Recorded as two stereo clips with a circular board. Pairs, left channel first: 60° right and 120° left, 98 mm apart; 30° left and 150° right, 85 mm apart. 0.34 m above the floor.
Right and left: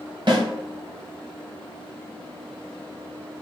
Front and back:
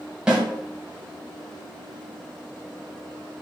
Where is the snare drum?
135° left, 2 m.